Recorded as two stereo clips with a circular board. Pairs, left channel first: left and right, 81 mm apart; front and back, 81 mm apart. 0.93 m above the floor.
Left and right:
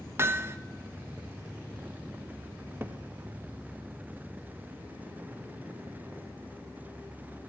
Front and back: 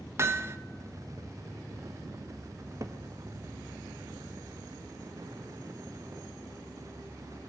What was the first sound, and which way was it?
Hammering, 140° right.